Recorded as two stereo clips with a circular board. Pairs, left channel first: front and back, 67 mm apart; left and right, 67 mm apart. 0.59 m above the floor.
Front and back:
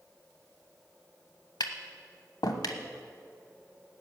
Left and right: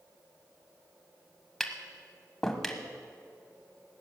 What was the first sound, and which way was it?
Tapping, 5° left.